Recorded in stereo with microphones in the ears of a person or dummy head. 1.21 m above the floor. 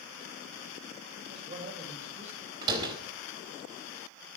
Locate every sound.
1.3 s a man speaking: 35° right (ahead or behind), 5.5 m; by 2.5 s 40° right (ahead or behind), 6 m
2.6 s a door slam: 25° right (ahead or behind), 3.5 m